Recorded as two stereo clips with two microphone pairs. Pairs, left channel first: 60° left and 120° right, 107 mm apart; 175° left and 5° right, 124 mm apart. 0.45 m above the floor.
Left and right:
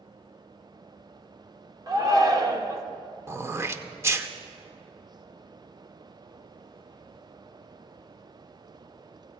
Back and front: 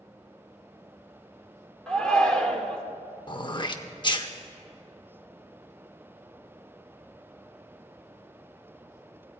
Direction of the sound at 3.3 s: 170° right.